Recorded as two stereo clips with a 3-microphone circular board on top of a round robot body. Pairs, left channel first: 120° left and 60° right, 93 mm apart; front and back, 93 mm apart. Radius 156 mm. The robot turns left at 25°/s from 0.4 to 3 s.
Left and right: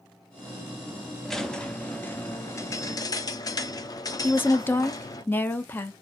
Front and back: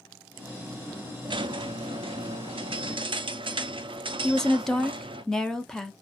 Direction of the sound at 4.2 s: 75° left.